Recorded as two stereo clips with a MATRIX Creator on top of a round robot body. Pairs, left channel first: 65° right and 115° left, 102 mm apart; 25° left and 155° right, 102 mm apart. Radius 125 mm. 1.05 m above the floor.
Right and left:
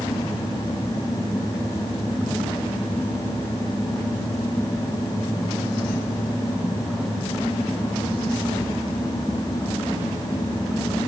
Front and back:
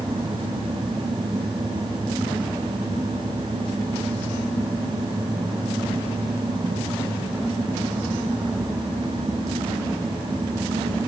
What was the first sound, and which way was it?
Only background noise.